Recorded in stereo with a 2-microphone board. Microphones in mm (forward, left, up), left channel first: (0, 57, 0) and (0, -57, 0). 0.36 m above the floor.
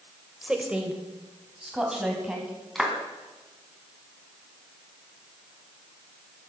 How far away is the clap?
About 2.5 m.